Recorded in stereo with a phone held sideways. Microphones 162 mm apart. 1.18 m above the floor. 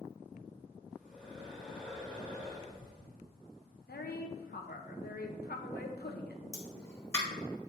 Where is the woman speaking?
80° left, 1.0 m.